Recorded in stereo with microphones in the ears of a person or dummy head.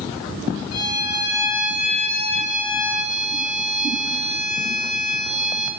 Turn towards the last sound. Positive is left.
turn(degrees=50)  # may be behind; listen again after turning